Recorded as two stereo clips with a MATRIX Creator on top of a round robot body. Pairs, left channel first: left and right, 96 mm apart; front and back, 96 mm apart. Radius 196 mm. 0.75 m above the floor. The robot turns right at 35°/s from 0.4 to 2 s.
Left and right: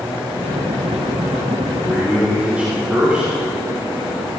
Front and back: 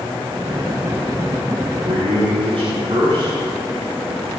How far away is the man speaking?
About 6 m.